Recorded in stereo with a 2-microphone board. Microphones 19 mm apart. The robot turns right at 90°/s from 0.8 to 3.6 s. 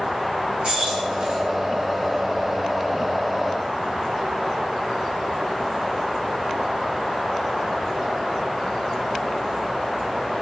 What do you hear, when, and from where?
0.6 s keys jangling: 50° right (ahead or behind), 1.5 m; by 1.4 s 70° right (ahead or behind), 1.5 m